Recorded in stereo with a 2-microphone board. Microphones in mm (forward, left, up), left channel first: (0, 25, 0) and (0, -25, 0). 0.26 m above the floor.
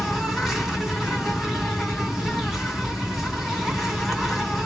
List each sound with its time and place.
0.0 s an insect: 5° right (ahead or behind), 2.0 m